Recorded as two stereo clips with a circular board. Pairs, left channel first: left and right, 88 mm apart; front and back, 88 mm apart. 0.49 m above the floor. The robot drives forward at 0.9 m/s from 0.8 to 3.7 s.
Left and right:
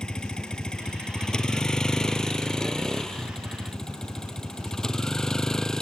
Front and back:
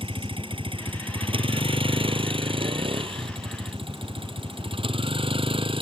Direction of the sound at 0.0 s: 170° left.